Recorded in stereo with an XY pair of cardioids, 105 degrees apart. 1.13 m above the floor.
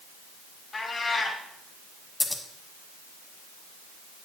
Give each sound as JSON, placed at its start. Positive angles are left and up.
{"t": 0.7, "sound": "a cat meowing", "azimuth_deg": 40, "distance_m": 2.0}
{"t": 2.2, "sound": "scissors", "azimuth_deg": 25, "distance_m": 1.3}